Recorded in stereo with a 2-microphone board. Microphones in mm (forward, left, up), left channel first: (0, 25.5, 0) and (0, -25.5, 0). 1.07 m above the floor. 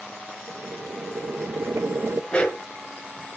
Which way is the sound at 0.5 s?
70° right (ahead or behind).